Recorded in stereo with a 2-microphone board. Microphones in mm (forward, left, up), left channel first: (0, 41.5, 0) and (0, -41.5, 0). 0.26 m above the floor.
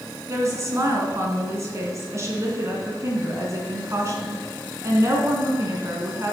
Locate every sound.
0.3 s a woman speaking: 35° right (ahead or behind), 2 m